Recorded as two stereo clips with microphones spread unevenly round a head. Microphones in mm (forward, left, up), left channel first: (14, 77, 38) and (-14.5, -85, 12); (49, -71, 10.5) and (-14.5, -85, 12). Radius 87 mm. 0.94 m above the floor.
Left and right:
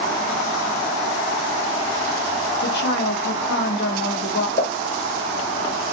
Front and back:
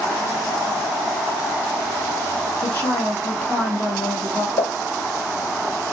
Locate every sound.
2.6 s a woman speaking: 70° left, 1.2 m
4.6 s a pop: 30° left, 1.7 m